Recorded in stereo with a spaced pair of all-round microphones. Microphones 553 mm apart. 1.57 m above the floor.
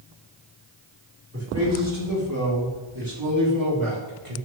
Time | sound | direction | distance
1.3 | a man speaking | 25° right (ahead or behind) | 5.5 m